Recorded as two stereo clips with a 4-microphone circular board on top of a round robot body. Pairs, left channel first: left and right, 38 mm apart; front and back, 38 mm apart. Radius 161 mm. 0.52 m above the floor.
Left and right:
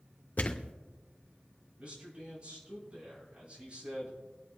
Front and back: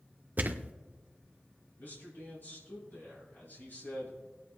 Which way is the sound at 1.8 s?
35° right.